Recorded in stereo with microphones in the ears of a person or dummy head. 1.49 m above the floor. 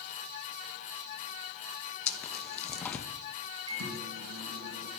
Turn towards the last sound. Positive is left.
turn(degrees=-85)